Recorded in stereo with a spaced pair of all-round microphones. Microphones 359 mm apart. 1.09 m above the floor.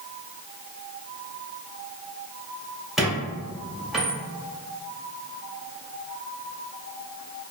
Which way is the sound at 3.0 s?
Centre (ahead or behind).